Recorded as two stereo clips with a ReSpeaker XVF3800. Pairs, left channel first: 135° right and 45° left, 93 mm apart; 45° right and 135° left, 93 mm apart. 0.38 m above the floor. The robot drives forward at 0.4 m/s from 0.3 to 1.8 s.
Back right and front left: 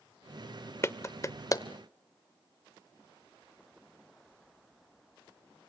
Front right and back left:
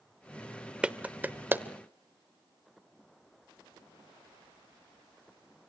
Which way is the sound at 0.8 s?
155° right.